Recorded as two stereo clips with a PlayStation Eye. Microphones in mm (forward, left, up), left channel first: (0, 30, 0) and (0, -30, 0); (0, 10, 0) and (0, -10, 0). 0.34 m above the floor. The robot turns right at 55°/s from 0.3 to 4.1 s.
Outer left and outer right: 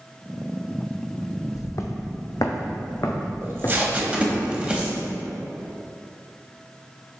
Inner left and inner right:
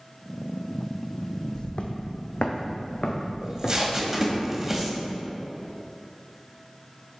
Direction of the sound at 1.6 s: 60° left (ahead or behind).